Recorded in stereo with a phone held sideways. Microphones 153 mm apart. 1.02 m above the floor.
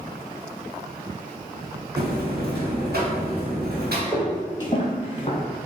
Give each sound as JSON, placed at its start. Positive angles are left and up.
{"t": 2.0, "sound": "a buzzer", "side_deg": -85, "distance_m": 1.4}
{"t": 4.1, "sound": "footsteps", "side_deg": 15, "distance_m": 1.2}